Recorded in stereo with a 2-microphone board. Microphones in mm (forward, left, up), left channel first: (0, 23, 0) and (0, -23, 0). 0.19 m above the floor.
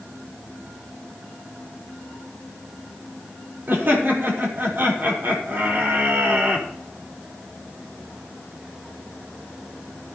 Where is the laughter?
50° right (ahead or behind), 5 m.